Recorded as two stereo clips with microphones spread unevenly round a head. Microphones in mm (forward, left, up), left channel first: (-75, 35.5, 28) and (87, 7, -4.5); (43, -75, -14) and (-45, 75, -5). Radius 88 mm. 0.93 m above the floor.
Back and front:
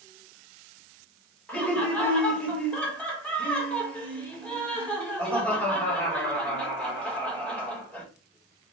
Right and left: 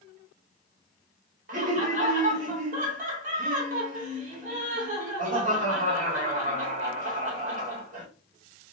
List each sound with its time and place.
1.5 s laughter: 80° left, 1.4 m